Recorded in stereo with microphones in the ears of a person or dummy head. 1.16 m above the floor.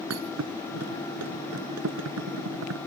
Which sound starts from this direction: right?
A thud, at 0.1 s.